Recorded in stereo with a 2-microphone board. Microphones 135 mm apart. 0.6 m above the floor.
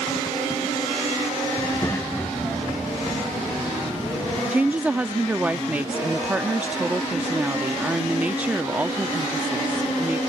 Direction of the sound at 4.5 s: 10° right (ahead or behind).